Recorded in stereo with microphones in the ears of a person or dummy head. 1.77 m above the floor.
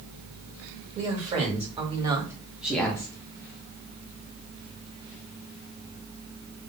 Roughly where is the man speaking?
Right.